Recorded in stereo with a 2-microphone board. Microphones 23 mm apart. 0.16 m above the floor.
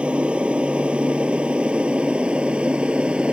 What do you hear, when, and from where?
0.0 s an aircraft: 55° right (ahead or behind); by 3.3 s 50° right (ahead or behind)